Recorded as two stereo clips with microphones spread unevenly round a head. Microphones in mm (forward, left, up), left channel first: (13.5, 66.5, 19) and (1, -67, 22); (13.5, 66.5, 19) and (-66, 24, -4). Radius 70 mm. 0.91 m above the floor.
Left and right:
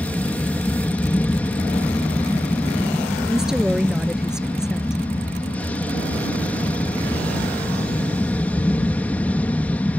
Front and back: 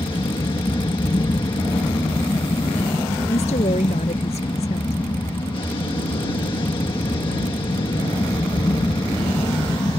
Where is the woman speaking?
10° right.